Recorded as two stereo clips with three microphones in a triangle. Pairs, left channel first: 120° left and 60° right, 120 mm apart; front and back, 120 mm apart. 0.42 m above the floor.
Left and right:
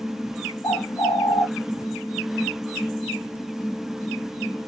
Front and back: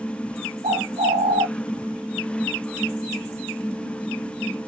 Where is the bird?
Straight behind, 0.9 m.